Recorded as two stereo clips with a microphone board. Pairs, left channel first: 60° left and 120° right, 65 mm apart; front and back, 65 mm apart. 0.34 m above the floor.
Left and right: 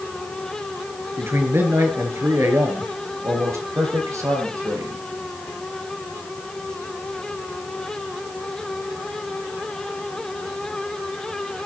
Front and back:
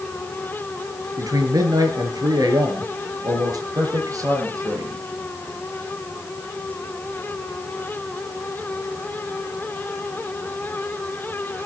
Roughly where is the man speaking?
Behind.